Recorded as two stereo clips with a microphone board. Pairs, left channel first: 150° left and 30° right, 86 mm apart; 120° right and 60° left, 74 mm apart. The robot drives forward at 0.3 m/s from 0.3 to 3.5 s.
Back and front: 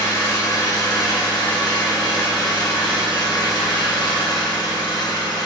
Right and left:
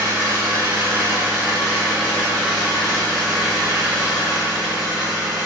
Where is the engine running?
110° left, 1.6 m; by 5.5 s 140° left, 2 m.